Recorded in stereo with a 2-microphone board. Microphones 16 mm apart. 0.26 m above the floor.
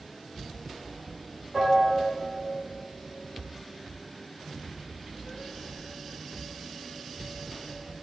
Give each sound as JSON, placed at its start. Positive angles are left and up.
{"t": 1.5, "sound": "a piano", "side_deg": -85, "distance_m": 6.0}